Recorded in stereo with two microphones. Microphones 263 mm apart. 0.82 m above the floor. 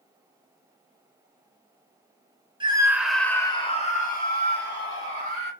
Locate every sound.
2.6 s a scream: 20° right (ahead or behind), 0.8 m; by 5.5 s 55° left (ahead or behind), 1.6 m